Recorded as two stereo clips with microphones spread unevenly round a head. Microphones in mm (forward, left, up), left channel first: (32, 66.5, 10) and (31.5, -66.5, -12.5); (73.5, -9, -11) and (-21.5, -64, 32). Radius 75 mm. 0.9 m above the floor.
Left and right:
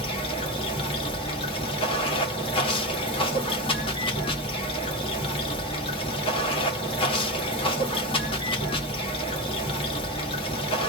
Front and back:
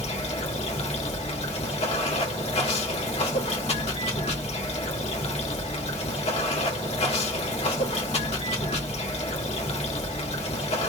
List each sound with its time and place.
0.0 s running water: 35° left, 1.5 m